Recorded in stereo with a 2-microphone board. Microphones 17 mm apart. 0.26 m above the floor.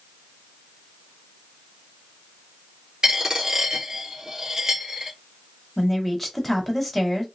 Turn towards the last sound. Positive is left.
turn(degrees=0)  # may be behind; listen again after turning